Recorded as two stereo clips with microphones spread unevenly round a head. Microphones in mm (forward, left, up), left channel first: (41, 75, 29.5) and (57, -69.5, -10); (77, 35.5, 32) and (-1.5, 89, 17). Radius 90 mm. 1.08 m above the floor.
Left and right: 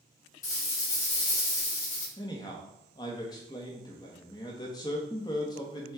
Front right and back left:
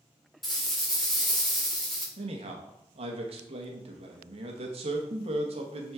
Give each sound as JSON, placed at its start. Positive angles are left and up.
{"t": 0.4, "sound": "a rattle", "azimuth_deg": 55, "distance_m": 3.0}
{"t": 2.2, "sound": "a man speaking", "azimuth_deg": 170, "distance_m": 1.2}